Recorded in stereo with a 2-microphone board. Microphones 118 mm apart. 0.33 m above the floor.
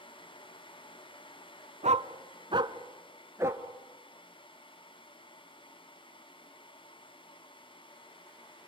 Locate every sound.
1.8 s a dog barking: 75° right (ahead or behind), 1.0 m; by 3.6 s 20° right (ahead or behind), 1.8 m